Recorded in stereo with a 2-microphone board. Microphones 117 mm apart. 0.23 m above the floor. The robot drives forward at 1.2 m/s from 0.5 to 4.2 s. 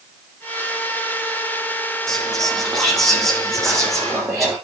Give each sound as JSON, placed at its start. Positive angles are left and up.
{"t": 2.1, "sound": "whispering", "side_deg": 5, "distance_m": 1.2}